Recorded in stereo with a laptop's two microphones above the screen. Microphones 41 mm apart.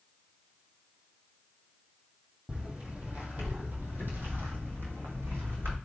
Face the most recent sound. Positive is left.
turn(degrees=-65)  # may be behind; listen again after turning